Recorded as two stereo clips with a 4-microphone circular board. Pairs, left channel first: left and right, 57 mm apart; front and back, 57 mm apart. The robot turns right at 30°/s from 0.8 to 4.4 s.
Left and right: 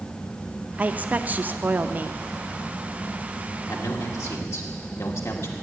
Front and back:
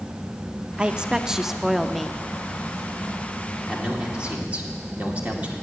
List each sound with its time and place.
0.8 s a woman speaking: 125° right, 0.6 m; by 2.2 s 80° right, 0.6 m
3.7 s a man speaking: 95° left, 2 m; by 5.5 s 115° left, 2 m